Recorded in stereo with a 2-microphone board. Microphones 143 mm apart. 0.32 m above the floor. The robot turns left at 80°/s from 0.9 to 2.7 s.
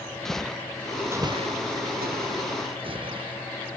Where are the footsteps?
5° left (ahead or behind); by 3.3 s 35° right (ahead or behind).